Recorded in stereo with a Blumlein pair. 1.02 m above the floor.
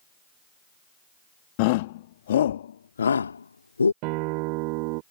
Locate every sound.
1.6 s a shout: 45° left; by 3.9 s 80° left
4.0 s a guitar: 45° right